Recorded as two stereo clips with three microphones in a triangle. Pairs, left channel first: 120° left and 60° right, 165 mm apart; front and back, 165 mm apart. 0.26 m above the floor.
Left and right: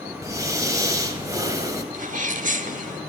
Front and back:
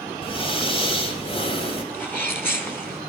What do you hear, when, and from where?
0.2 s breathing: 5° right, 1.7 m
1.9 s a sneeze: 75° right, 1.9 m